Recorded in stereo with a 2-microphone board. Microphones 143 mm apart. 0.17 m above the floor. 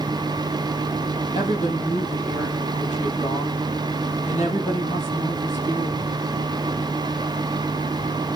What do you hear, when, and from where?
1.4 s a woman speaking: 50° left (ahead or behind), 5 m